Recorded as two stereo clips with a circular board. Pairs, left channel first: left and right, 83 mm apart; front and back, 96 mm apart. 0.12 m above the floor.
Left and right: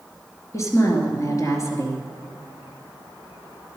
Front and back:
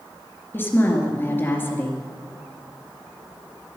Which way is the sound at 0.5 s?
60° left.